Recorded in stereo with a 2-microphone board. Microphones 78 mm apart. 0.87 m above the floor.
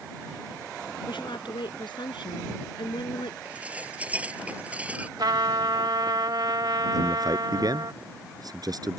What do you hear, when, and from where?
1.1 s a woman speaking: 85° left
3.5 s dishes clattering: 15° right (ahead or behind)
5.2 s a trumpet: 65° right (ahead or behind)
6.9 s a man speaking: 55° right (ahead or behind)